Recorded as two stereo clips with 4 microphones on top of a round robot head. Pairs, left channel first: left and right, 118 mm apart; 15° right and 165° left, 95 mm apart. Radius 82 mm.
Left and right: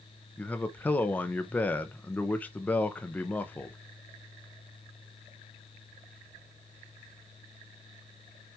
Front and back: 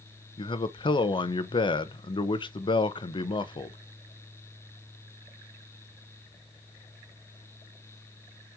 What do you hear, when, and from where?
0.4 s a man speaking: 15° left, 1.0 m